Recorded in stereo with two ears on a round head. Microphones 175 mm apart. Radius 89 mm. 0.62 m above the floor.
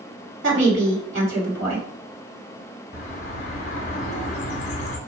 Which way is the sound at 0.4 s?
65° right (ahead or behind).